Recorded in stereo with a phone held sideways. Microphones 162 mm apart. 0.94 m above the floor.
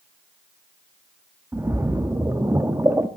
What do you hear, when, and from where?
1.5 s a splash: 15° right (ahead or behind), 0.7 m